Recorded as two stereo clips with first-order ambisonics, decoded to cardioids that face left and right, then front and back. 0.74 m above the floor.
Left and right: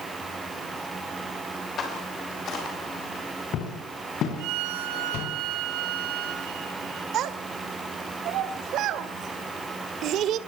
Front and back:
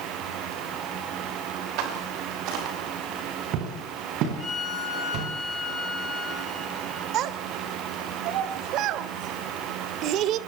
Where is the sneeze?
I don't hear a sneeze.